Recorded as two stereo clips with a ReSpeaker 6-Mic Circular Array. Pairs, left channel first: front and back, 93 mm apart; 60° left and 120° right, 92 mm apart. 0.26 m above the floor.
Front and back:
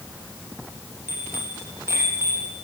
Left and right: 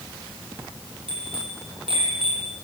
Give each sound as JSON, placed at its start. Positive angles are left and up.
{"t": 1.1, "sound": "a bicycle bell", "azimuth_deg": -115, "distance_m": 7.5}